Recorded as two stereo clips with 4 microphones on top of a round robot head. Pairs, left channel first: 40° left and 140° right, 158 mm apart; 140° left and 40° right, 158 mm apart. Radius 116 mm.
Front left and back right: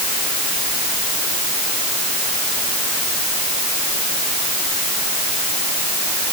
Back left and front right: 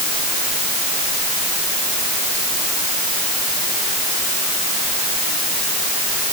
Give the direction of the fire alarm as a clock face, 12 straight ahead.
I don't hear a fire alarm.